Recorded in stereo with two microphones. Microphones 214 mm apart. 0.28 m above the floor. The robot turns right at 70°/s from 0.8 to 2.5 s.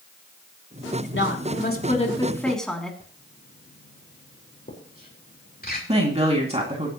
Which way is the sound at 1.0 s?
75° left.